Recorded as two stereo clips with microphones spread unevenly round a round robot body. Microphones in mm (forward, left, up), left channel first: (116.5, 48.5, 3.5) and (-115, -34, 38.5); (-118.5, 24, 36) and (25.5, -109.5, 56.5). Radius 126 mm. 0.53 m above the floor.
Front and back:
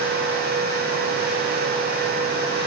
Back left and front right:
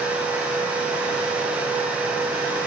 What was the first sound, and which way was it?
Only background noise.